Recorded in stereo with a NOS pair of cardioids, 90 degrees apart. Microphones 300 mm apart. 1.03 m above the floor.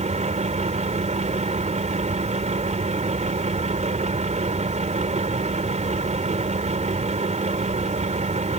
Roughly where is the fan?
Ahead right.